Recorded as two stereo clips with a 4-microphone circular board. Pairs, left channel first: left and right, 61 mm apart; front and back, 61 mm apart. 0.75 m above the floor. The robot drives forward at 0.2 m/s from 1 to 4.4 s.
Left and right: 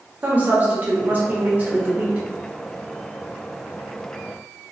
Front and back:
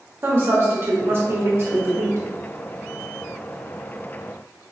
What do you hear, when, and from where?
0.2 s a woman speaking: 145° right, 1.0 m; by 2.3 s 150° right, 1.2 m